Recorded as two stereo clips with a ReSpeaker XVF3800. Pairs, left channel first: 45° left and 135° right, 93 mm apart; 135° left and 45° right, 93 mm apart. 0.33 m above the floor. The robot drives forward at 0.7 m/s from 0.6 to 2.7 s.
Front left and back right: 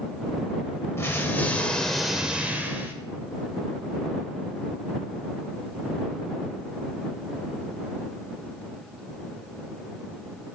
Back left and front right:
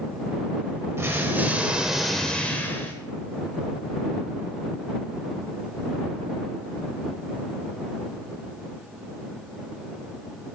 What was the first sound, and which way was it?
An explosion, straight ahead.